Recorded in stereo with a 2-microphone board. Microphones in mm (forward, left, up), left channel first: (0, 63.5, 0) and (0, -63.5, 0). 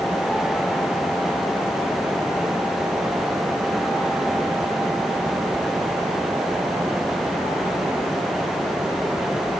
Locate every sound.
Only background noise.